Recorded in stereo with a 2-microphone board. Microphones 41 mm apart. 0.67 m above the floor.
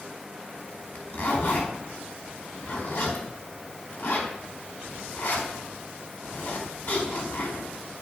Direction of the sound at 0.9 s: 60° left (ahead or behind).